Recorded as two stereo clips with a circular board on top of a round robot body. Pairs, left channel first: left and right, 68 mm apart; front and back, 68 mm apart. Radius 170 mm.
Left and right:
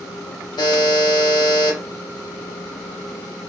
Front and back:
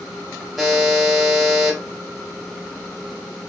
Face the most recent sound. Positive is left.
turn(degrees=95)